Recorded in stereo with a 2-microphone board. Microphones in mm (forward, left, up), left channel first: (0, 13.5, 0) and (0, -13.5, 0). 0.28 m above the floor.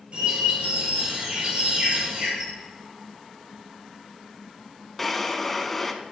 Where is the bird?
45° right (ahead or behind), 3 m.